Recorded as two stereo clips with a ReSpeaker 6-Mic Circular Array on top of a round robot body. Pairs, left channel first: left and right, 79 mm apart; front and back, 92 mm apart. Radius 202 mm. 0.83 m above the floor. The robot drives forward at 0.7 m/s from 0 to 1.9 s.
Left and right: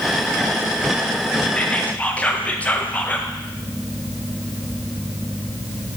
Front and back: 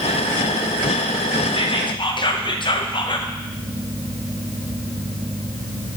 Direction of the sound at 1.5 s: 15° left.